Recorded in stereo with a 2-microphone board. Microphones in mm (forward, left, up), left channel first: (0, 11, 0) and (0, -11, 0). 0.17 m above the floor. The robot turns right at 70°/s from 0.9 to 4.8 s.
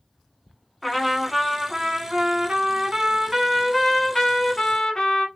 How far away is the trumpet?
About 0.8 m.